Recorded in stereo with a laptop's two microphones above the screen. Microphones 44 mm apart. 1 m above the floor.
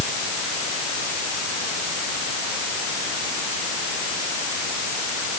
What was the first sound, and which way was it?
Only background noise.